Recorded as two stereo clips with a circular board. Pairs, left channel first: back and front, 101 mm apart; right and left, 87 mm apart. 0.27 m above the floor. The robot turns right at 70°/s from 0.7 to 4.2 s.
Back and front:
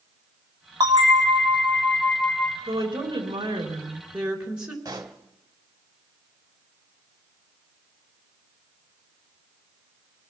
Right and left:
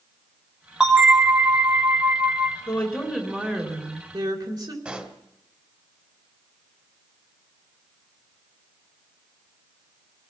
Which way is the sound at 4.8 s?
25° left.